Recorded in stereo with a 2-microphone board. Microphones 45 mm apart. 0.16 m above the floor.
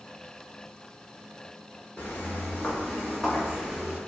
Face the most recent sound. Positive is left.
turn(degrees=-10)  # may be behind; listen again after turning